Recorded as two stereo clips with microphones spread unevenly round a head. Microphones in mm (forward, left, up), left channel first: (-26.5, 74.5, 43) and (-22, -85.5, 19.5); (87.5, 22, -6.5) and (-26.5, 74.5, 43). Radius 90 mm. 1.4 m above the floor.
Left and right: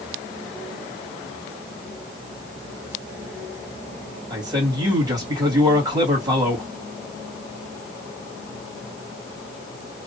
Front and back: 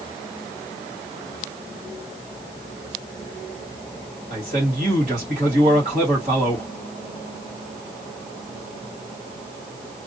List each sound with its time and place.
4.3 s a man speaking: 155° right, 2 m